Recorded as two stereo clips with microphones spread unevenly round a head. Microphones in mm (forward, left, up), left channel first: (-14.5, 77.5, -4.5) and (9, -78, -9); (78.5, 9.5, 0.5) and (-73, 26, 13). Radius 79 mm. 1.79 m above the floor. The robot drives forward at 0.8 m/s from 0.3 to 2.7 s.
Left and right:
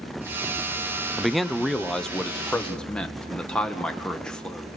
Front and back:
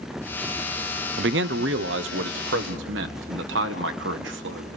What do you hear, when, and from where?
1.2 s a man speaking: 170° right, 0.6 m; by 4.8 s 175° right, 1.8 m